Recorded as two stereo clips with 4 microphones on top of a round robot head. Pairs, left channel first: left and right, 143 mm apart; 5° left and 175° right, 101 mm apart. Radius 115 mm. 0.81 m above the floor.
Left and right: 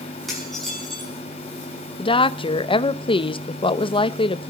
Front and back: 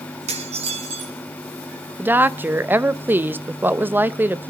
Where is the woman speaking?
125° left, 1.0 m.